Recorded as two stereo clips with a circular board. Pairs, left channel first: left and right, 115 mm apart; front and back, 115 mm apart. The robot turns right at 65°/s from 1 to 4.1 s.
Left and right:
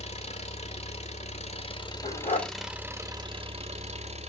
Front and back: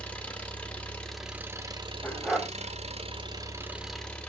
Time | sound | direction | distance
0.0 | an engine running | 80° left | 1.2 m
2.0 | a dog barking | 75° left | 1.2 m